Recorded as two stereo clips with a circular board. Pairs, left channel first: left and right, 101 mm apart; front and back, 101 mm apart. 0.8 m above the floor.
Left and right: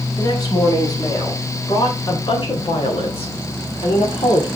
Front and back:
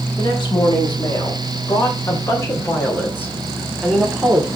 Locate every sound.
0.2 s a woman speaking: 35° left, 4.5 m; by 4.5 s 105° left, 1.9 m